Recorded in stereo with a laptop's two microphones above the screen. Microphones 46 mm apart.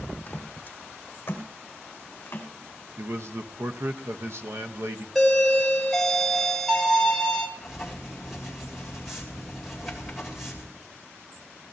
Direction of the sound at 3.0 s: 65° right (ahead or behind).